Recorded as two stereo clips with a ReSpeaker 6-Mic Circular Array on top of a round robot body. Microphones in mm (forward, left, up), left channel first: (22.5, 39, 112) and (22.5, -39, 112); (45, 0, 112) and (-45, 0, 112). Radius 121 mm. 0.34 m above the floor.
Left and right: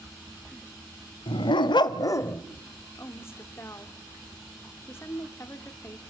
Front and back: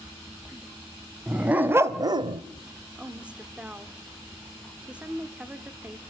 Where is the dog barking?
100° left, 1.3 m; by 2.4 s 160° left, 0.7 m.